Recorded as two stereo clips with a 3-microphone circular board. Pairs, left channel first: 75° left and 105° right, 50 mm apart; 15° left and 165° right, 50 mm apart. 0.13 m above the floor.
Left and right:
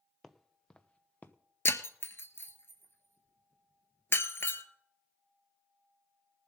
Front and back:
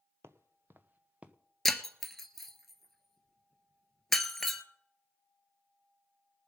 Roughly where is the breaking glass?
Left.